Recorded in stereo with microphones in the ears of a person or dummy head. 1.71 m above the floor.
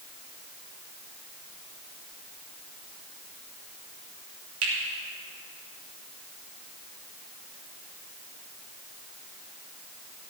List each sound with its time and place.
4.6 s a finger snap: 80° right, 3.5 m